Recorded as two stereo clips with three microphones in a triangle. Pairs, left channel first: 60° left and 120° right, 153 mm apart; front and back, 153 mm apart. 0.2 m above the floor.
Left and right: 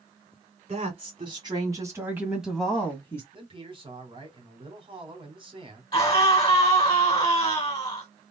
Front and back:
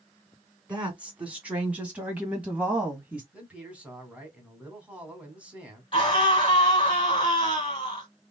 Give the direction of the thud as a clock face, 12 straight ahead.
I don't hear a thud.